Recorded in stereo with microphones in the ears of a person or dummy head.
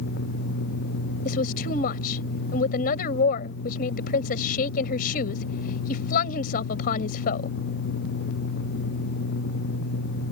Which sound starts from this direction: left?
A woman speaking, at 1.2 s.